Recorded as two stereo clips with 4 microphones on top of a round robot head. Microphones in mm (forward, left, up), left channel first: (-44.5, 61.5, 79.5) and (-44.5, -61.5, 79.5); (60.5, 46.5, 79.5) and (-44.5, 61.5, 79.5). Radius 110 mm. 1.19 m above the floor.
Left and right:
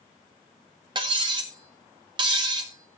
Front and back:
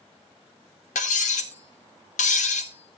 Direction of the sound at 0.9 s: 30° right.